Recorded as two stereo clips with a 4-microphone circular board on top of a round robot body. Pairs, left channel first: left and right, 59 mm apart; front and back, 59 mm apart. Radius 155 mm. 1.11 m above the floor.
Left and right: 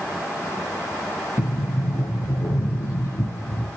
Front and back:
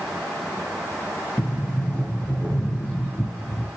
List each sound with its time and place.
1.4 s a sliding door: 65° left, 4.5 m